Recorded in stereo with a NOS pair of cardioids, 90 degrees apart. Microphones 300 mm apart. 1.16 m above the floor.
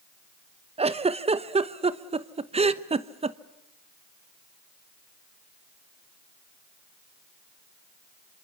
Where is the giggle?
20° right, 1.1 m.